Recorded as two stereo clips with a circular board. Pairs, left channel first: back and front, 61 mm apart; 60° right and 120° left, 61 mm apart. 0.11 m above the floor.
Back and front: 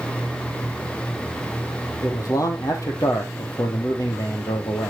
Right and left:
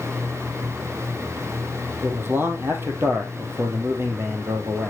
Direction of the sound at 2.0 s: 170° left.